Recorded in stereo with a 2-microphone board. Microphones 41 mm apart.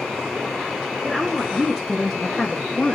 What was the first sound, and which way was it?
A woman speaking, 15° right (ahead or behind).